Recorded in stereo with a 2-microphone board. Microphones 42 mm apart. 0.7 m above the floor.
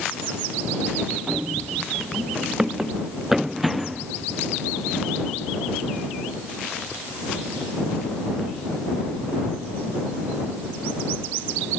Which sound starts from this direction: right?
Running footsteps, at 1.3 s.